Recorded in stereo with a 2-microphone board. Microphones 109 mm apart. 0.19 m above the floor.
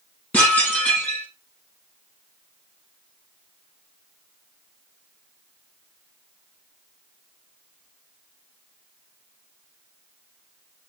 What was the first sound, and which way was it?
Dishes clattering, 10° left (ahead or behind).